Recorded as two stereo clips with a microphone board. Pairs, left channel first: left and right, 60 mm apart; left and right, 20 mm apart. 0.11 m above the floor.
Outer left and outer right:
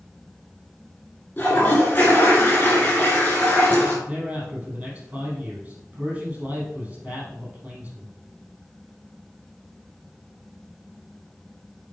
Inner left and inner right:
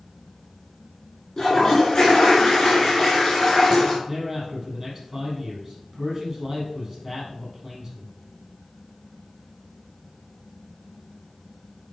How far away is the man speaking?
About 4.5 m.